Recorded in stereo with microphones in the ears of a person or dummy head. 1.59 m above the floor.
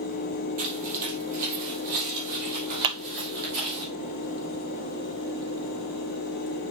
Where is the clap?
25° right (ahead or behind), 0.8 m.